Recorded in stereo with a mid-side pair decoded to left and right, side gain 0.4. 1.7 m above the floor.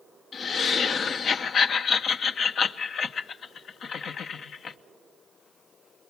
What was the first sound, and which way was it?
Laughter, 65° left.